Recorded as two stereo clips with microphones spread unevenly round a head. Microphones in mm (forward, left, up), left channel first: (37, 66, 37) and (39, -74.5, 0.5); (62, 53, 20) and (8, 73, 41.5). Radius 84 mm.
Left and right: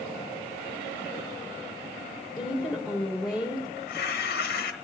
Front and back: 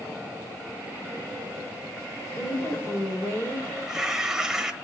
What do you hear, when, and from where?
2.4 s a woman speaking: 5° right, 4 m
3.8 s tearing paper: 75° left, 1.1 m